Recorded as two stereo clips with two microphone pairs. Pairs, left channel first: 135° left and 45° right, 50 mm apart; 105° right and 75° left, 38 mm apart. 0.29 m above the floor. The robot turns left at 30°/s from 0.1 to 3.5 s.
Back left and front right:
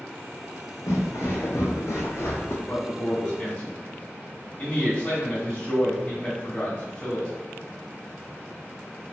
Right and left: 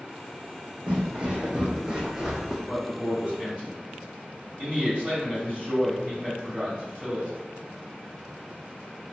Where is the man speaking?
125° left, 1.3 m; by 7.3 s 100° left, 1.3 m.